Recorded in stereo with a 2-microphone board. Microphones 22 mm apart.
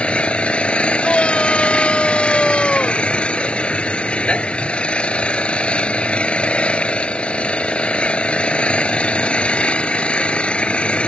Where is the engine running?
75° left (ahead or behind).